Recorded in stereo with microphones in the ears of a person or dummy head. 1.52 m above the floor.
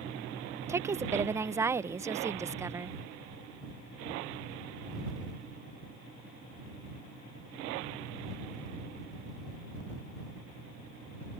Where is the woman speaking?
15° right (ahead or behind).